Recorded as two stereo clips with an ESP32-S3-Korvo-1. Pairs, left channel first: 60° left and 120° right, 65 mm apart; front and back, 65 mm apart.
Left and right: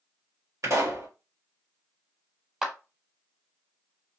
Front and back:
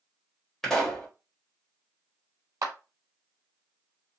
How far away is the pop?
About 1.6 m.